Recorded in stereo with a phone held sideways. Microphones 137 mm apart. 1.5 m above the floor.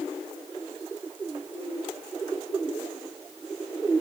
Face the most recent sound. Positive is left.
No sound to turn to.